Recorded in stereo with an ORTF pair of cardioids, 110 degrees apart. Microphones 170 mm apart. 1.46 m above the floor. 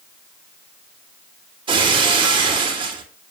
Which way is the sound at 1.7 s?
30° right.